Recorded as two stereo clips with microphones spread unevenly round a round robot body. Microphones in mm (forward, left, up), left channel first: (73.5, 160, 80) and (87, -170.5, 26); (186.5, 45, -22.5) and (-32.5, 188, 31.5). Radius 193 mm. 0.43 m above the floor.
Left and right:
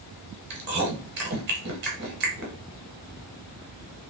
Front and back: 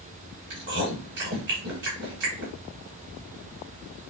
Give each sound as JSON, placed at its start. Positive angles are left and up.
{"t": 0.5, "sound": "chewing", "azimuth_deg": -150, "distance_m": 0.8}